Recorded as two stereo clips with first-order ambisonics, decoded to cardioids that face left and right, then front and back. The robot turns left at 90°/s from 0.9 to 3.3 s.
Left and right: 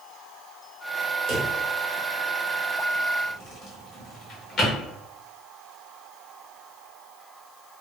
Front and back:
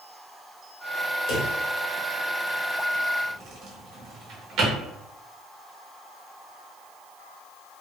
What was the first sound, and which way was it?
A drawer, 35° right.